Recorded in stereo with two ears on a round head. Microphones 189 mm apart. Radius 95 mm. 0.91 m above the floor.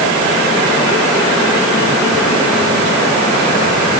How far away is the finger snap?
No finger snap in this recording.